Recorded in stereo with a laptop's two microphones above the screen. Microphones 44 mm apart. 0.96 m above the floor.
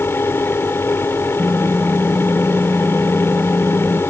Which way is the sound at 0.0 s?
70° left (ahead or behind).